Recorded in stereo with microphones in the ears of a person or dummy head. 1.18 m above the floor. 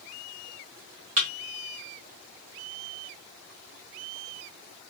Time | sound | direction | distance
1.2 | a thud | 30° right (ahead or behind) | 1.0 m